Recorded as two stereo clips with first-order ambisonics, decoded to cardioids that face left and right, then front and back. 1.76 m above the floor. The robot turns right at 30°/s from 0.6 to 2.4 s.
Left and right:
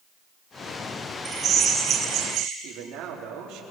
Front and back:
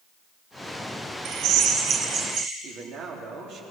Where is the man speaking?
130° right, 4 m.